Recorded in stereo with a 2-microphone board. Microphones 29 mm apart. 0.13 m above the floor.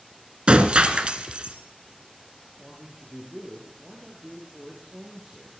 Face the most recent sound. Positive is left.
turn(degrees=-10)  # may be behind; listen again after turning